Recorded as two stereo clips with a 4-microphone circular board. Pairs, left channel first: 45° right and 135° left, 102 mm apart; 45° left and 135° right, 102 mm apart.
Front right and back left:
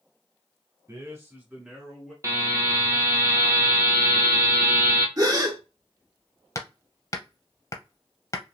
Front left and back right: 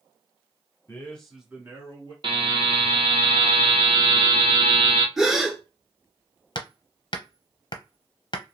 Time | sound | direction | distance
0.9 | a man speaking | 105° left | 1.5 m
2.2 | a buzzer | 165° right | 1.0 m
5.2 | a gasp | 145° left | 1.0 m
6.5 | hammering | 10° left | 0.6 m